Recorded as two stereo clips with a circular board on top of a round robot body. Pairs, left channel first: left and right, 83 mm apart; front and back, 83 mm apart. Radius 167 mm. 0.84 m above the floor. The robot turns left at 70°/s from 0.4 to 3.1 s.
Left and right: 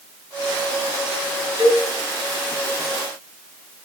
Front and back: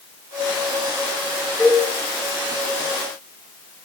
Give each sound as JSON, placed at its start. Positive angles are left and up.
{"t": 1.6, "sound": "a cowbell", "azimuth_deg": -65, "distance_m": 5.0}